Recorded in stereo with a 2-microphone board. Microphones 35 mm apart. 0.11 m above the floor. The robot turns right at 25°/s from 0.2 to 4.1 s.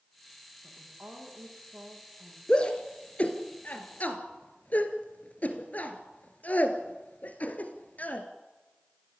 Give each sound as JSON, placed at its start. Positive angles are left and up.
{"t": 0.6, "sound": "a woman speaking", "azimuth_deg": -70, "distance_m": 8.5}
{"t": 2.5, "sound": "a shout", "side_deg": 25, "distance_m": 2.0}